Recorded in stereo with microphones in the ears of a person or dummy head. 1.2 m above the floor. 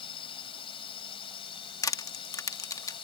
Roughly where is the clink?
No clink in this recording.